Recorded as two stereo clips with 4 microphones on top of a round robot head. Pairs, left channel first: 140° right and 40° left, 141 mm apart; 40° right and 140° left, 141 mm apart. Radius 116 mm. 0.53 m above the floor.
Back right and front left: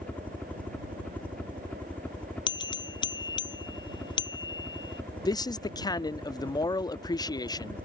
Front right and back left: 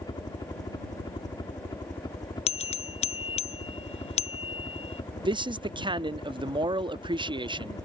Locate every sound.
0.0 s a helicopter: 70° right
2.5 s a bell: 85° right
5.2 s a man speaking: 175° left